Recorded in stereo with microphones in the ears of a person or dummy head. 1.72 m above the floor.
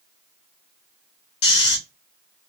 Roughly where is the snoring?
Left.